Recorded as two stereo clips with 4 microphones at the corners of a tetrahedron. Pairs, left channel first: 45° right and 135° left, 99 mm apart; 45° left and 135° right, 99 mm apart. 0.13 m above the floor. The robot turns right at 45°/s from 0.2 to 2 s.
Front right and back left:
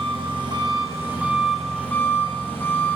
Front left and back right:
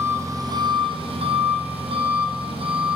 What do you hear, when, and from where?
0.0 s an engine running: 165° left, 2 m; by 3.0 s 115° right, 2 m